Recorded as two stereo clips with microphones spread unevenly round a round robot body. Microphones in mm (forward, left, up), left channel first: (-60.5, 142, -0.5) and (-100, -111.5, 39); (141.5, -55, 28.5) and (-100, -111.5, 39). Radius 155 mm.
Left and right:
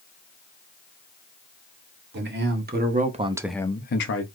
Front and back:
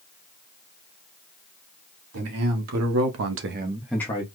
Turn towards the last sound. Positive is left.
turn(degrees=75)